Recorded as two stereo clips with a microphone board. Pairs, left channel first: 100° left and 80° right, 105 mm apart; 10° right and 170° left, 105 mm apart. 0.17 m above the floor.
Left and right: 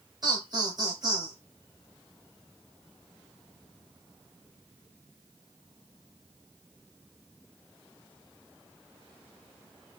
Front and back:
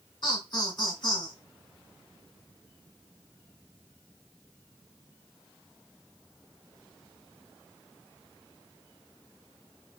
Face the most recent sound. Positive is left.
turn(degrees=-40)